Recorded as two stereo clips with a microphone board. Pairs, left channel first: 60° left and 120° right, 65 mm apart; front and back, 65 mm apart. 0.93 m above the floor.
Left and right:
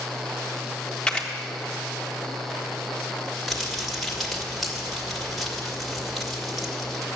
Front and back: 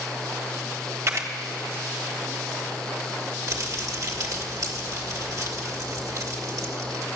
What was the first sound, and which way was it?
A camera shutter, 135° left.